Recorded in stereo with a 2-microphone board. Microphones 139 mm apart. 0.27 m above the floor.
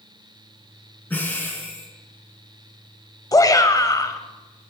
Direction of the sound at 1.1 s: 15° left (ahead or behind).